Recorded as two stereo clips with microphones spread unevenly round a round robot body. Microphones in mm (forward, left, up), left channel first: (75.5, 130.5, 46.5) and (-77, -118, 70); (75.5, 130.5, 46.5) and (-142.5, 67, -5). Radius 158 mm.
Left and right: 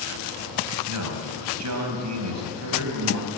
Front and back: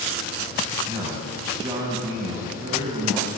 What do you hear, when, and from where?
0.9 s a man speaking: 90° right, 4 m